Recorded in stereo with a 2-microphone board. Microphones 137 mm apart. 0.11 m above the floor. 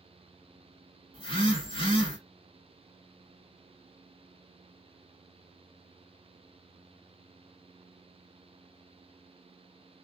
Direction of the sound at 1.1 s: 40° left (ahead or behind).